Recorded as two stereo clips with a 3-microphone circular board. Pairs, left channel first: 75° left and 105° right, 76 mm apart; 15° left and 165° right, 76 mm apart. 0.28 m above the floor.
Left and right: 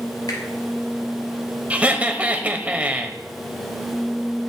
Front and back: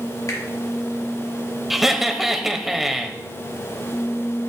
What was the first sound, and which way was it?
A finger snap, 55° left.